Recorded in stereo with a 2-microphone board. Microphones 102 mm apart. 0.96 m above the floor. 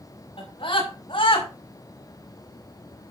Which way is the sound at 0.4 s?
60° left (ahead or behind).